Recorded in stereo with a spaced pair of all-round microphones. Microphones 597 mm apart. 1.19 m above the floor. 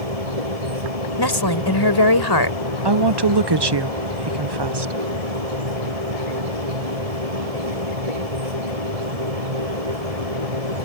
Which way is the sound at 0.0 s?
80° right.